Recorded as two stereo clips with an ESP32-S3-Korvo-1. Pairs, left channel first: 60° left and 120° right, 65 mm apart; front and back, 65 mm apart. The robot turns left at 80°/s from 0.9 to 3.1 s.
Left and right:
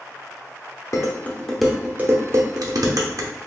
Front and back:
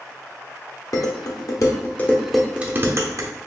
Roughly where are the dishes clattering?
Ahead left.